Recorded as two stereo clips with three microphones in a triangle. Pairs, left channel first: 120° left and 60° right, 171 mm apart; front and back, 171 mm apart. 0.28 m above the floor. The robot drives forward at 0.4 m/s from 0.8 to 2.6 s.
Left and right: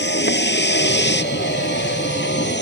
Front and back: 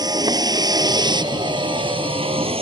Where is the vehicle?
110° left; by 2.6 s 125° left.